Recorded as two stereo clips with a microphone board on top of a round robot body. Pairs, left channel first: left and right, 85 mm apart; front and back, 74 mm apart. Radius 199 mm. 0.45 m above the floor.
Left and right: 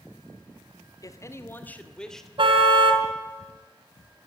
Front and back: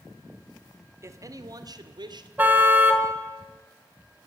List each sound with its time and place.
1.0 s a man speaking: 135° left, 1.9 m; by 2.3 s 175° left, 2.5 m
2.4 s a car horn: 110° right, 2.5 m